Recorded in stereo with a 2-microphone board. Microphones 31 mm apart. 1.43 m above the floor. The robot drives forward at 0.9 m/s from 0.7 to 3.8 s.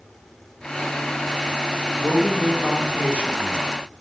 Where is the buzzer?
No buzzer in this recording.